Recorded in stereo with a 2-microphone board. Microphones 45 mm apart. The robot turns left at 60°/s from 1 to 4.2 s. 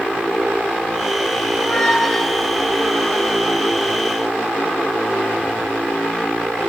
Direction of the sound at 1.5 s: 15° left (ahead or behind).